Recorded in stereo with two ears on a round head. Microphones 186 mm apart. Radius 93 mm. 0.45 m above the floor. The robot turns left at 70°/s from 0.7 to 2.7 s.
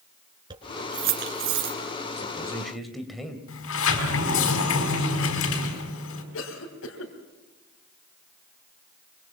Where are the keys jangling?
20° right (ahead or behind), 4 m; by 1.8 s 80° right, 4 m.